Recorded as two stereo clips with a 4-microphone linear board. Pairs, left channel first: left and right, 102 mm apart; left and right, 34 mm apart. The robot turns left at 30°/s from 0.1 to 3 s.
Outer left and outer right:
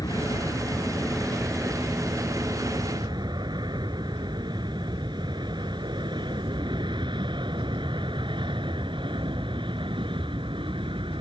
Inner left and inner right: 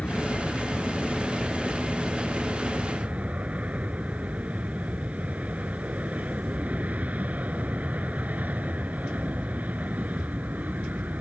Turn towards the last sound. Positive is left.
turn(degrees=-55)  # may be behind; listen again after turning